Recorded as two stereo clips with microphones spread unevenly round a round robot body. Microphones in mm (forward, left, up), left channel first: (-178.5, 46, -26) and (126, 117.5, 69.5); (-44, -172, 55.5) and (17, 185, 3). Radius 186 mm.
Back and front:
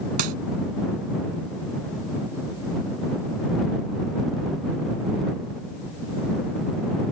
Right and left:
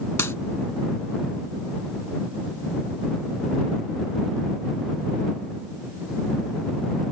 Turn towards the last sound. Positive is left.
turn(degrees=-15)